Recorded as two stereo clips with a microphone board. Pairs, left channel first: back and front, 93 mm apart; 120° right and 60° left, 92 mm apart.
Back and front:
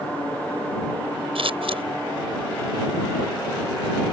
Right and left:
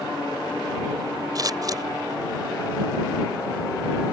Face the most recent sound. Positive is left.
turn(degrees=10)